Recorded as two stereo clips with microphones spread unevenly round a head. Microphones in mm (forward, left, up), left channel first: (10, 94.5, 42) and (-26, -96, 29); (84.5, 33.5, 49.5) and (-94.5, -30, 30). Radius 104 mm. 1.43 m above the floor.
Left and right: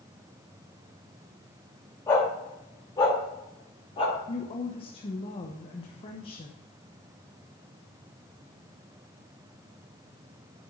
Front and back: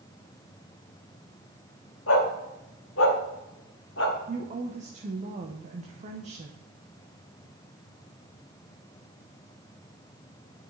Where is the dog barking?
5° left, 2.5 m; by 4.2 s 25° left, 1.4 m.